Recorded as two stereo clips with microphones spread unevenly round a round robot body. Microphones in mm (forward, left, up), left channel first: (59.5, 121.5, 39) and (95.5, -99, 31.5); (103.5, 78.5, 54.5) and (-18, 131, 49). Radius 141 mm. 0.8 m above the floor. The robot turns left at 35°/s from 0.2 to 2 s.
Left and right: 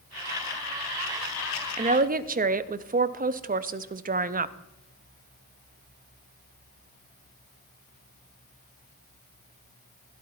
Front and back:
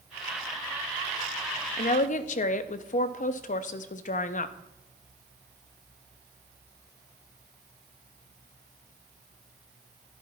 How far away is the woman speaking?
About 0.7 m.